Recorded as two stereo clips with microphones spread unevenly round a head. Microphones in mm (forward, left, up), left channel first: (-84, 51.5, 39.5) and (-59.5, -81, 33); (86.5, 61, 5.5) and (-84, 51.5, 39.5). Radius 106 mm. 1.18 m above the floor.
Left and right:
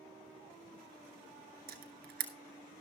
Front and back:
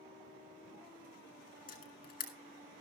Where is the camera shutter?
50° right, 1.7 m.